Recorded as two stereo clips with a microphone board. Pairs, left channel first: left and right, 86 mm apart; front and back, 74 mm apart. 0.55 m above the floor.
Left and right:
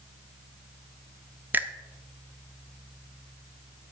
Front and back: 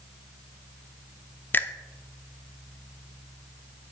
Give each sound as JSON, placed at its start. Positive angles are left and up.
{"t": 1.5, "sound": "a finger snap", "azimuth_deg": -40, "distance_m": 0.6}